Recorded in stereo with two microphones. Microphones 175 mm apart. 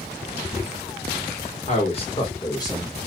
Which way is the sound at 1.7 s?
40° left (ahead or behind).